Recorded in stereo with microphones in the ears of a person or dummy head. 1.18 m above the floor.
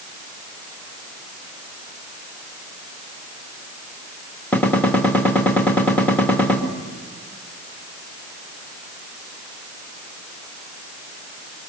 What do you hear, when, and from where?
4.5 s a gunshot: 5° left (ahead or behind), 2 m